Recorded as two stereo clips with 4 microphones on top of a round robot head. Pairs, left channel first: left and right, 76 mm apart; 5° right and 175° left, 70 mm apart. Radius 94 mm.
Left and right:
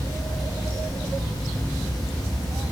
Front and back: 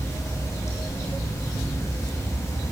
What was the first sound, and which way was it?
Running water, 40° left.